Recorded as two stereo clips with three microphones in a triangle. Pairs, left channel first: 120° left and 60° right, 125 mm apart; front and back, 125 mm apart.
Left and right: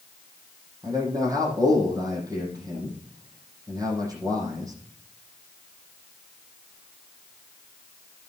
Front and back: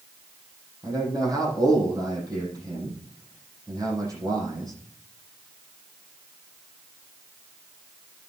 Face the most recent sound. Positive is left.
turn(degrees=-120)